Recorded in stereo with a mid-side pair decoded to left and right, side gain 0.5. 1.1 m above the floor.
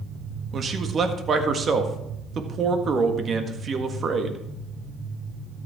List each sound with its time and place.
0.5 s a man speaking: 45° right, 1.6 m